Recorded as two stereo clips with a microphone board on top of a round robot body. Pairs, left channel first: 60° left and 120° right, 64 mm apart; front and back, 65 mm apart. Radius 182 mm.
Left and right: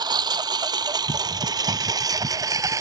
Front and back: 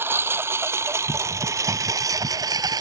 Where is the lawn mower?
125° right; by 2.8 s 160° right.